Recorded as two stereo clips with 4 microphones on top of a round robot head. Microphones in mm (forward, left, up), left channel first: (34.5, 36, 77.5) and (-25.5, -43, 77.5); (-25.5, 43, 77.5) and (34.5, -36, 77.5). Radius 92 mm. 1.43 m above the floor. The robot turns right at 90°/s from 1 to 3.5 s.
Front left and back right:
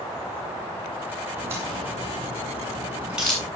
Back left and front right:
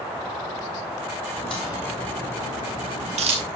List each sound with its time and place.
1.4 s a crack: 150° left, 7.5 m; by 3.5 s 20° right, 7.5 m